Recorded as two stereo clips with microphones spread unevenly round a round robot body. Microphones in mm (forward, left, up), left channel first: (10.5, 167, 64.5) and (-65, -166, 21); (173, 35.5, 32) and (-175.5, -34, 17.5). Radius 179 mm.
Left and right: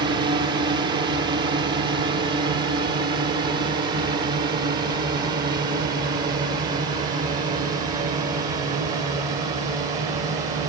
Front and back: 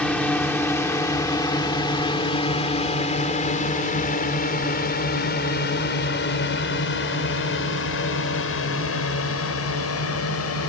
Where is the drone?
75° right; by 10.7 s 30° right.